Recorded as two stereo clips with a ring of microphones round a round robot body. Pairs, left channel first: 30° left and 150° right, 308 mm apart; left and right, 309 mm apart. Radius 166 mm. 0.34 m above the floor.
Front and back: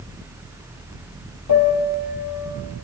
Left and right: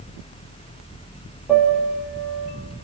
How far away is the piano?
About 5.5 m.